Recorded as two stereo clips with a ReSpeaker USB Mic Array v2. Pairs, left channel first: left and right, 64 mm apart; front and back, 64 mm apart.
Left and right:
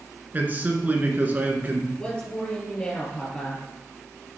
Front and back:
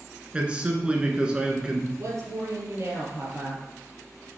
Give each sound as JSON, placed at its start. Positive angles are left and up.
{"t": 0.3, "sound": "a man speaking", "azimuth_deg": -120, "distance_m": 1.3}
{"t": 2.0, "sound": "a woman speaking", "azimuth_deg": 160, "distance_m": 3.5}